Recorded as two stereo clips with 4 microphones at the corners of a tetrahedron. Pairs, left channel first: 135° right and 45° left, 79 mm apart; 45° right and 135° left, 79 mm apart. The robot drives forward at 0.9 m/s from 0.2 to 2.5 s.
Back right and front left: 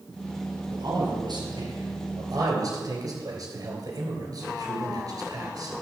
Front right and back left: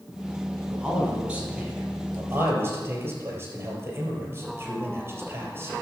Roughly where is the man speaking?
Ahead left.